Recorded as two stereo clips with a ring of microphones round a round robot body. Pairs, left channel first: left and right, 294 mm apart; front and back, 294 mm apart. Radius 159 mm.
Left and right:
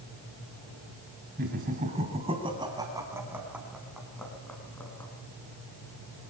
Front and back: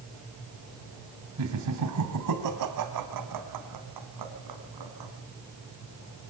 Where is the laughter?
150° right, 3.5 m; by 5.1 s 175° left, 5.5 m.